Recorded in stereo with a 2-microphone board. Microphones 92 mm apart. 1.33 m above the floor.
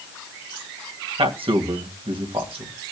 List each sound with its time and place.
1.2 s a man speaking: 75° right (ahead or behind), 1.8 m